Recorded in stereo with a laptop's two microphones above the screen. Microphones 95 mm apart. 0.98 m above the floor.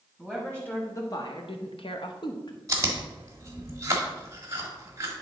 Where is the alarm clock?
No alarm clock in this recording.